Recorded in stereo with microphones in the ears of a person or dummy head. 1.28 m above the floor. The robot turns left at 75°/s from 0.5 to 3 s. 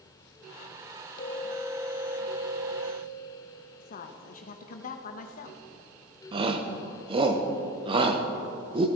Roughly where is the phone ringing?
Ahead left.